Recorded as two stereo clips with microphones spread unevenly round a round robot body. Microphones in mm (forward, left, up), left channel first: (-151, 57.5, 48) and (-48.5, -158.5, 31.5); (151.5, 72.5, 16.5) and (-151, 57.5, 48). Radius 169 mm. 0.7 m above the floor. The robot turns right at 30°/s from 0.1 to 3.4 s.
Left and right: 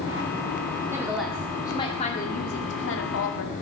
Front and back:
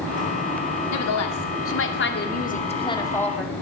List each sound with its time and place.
0.9 s a woman speaking: 15° left, 2 m; by 3.5 s 90° left, 2 m